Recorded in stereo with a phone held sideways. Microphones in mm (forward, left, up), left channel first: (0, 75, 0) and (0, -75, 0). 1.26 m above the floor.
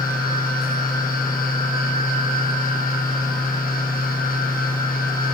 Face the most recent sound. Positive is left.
turn(degrees=75)  # may be behind; listen again after turning